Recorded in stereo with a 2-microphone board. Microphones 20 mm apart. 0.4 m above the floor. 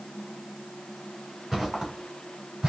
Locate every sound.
1.5 s footsteps: 10° right (ahead or behind), 2.5 m; by 2.7 s 40° right (ahead or behind), 2.5 m